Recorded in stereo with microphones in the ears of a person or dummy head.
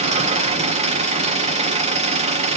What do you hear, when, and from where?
0.0 s an engine running: 35° right (ahead or behind), 0.8 m